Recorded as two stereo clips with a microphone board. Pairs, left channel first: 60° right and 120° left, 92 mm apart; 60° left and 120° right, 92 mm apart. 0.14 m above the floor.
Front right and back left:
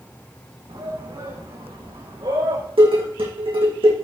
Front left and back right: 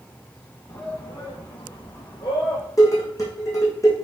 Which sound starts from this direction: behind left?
Dishes clattering, at 2.8 s.